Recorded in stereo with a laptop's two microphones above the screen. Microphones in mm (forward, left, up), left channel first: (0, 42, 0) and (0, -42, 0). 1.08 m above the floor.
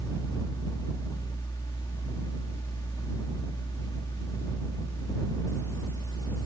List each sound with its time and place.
0.0 s a fan: 50° left (ahead or behind)